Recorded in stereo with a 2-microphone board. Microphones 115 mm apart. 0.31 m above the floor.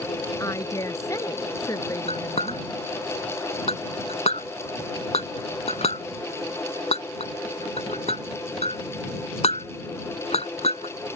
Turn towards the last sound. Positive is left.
turn(degrees=65)  # may be behind; listen again after turning